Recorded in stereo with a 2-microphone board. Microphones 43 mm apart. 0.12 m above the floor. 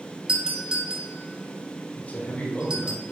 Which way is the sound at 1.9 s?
45° left (ahead or behind).